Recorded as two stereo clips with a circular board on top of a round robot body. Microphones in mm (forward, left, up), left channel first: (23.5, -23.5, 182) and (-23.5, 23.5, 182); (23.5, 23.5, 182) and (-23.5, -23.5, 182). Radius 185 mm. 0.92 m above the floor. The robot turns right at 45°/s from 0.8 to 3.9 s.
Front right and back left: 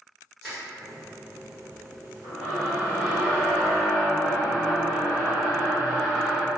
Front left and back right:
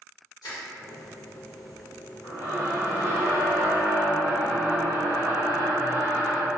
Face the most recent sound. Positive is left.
turn(degrees=170)